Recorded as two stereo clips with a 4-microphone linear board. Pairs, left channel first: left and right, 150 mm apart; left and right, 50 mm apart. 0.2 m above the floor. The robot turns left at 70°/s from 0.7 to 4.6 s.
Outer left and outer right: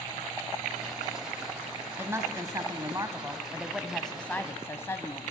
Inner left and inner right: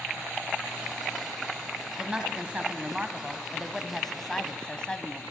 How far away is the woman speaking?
About 1.0 m.